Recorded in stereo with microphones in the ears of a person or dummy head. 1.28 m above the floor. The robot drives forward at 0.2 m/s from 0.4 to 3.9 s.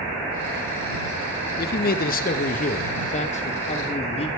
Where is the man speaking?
45° left (ahead or behind), 0.6 m; by 4.3 s 30° left (ahead or behind), 0.8 m.